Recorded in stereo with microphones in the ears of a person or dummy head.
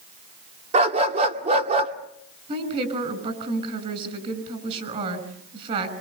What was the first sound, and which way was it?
A dog barking, 30° right (ahead or behind).